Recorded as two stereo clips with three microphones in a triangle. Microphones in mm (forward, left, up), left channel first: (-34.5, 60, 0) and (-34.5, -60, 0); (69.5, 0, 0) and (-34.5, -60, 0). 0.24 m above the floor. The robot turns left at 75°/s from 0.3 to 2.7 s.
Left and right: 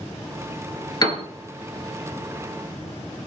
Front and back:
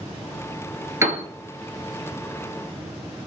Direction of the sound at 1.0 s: 145° left.